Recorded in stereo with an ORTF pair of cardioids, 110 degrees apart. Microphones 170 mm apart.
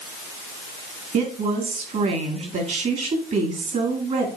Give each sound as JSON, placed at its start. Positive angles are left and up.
{"t": 1.1, "sound": "a woman speaking", "azimuth_deg": -45, "distance_m": 2.5}